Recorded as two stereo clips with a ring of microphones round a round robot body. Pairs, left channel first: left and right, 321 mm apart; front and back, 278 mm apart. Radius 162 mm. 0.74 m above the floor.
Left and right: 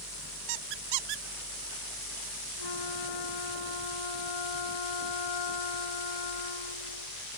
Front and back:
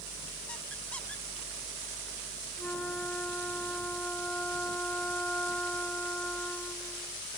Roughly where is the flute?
Left.